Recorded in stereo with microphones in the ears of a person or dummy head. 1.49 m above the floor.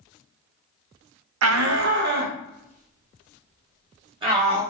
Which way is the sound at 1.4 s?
85° right.